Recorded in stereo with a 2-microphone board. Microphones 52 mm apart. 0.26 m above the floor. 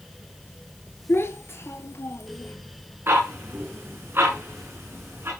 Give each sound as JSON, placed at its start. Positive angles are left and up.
{"t": 1.1, "sound": "a child speaking", "side_deg": 50, "distance_m": 2.5}
{"t": 3.1, "sound": "ticking", "side_deg": -45, "distance_m": 7.5}